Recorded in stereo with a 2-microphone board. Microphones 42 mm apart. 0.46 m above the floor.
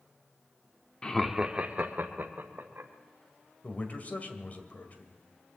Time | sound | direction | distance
1.0 | laughter | 20° left (ahead or behind) | 0.7 m
3.6 | a man speaking | 35° left (ahead or behind) | 1.9 m